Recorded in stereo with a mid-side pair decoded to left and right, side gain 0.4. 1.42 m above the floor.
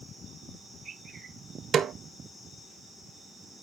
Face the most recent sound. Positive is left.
turn(degrees=-60)